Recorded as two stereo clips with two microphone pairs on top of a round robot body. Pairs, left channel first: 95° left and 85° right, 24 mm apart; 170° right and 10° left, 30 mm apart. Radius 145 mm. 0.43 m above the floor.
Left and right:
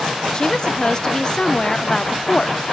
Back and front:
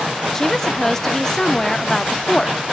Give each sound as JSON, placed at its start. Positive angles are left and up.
{"t": 0.3, "sound": "a woman speaking", "azimuth_deg": 115, "distance_m": 1.5}